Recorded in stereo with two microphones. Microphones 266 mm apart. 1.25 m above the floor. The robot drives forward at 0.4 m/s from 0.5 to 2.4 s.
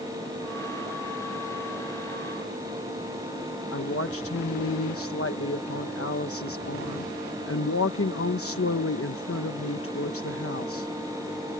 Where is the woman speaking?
55° left (ahead or behind).